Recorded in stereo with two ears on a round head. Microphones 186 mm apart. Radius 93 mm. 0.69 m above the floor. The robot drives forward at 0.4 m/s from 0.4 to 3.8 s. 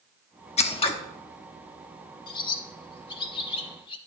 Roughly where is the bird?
Left.